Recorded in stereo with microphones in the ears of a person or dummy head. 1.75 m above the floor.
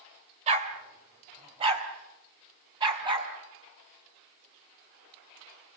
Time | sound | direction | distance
0.5 | a dog barking | 40° right (ahead or behind) | 3 m